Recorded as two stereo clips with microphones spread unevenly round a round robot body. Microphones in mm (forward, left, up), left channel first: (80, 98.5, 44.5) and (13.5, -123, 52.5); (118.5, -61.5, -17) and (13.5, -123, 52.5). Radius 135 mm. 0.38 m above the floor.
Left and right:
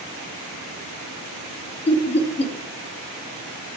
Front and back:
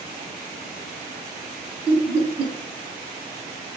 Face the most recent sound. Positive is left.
turn(degrees=45)